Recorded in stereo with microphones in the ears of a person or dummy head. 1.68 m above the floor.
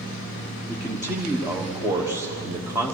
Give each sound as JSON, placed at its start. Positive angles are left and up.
{"t": 0.7, "sound": "a man speaking", "side_deg": -15, "distance_m": 1.2}